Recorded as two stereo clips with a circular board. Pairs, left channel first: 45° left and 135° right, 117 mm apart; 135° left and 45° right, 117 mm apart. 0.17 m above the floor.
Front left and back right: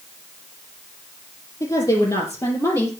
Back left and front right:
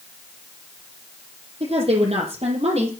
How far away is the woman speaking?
About 5.5 m.